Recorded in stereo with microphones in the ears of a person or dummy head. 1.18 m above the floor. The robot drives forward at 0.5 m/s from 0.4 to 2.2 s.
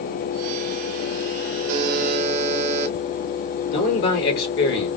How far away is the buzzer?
About 0.8 m.